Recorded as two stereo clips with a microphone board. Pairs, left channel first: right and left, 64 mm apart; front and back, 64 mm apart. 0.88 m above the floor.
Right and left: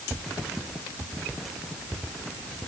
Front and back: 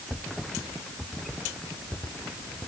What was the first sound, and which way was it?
Only background noise.